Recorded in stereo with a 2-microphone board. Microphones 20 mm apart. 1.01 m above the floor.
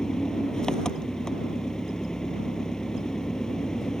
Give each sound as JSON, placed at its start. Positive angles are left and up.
{"t": 0.0, "sound": "an engine running", "side_deg": 40}